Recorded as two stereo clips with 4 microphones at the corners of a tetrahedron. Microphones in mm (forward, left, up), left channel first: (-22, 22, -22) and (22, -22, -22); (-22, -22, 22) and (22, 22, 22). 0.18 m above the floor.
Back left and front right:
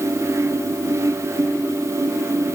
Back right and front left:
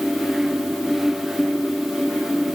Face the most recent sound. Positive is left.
No sound to turn to.